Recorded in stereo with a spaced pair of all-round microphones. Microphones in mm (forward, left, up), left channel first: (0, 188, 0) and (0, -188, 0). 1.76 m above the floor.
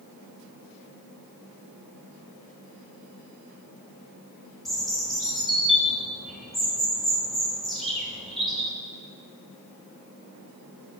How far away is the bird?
About 3 m.